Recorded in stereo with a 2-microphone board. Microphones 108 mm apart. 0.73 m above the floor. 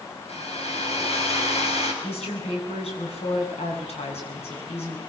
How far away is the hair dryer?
About 5.5 m.